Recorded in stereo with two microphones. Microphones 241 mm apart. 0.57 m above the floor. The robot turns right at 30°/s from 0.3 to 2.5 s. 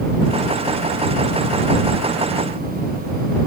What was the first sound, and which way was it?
Only background noise.